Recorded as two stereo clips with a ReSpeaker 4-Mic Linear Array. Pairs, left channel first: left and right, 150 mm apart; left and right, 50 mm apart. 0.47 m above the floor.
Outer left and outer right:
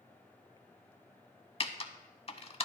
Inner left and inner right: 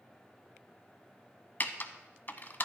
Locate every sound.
1.6 s typing on a keyboard: 40° left (ahead or behind), 0.6 m